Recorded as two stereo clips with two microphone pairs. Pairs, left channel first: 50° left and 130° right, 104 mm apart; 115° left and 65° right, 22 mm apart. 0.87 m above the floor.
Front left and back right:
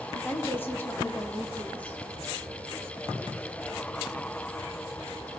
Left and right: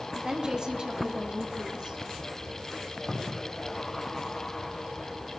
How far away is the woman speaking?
About 1.8 m.